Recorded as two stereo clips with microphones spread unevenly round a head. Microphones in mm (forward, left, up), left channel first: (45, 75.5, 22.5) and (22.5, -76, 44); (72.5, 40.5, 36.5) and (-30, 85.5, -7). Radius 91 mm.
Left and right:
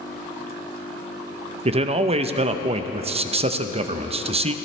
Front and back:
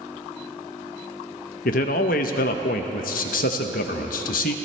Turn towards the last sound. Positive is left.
turn(degrees=-45)